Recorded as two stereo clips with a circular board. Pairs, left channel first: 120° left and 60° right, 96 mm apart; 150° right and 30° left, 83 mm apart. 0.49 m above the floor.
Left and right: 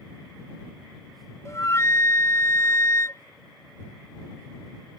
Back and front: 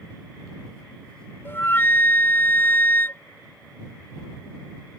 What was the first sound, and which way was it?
A flute, 160° left.